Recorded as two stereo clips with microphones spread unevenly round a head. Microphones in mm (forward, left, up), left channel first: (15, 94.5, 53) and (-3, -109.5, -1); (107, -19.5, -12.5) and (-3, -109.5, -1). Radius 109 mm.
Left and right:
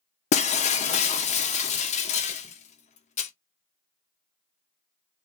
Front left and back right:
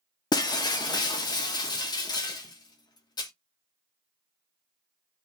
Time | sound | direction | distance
0.3 | breaking glass | 100° left | 0.5 m